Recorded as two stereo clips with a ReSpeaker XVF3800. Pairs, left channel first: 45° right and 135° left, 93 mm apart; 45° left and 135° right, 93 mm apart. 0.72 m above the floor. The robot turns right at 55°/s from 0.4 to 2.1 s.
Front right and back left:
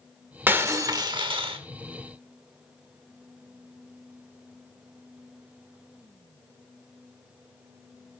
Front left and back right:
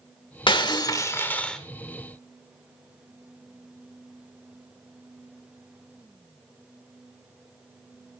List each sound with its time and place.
0.5 s breaking glass: 65° left, 1.3 m; by 1.6 s 130° left, 1.3 m